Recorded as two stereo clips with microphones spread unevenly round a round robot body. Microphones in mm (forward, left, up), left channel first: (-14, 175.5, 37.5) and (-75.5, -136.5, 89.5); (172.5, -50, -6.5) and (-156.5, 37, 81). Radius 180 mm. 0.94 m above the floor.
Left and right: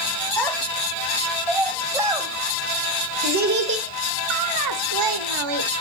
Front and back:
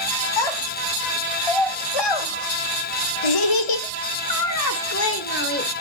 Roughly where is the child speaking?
Ahead.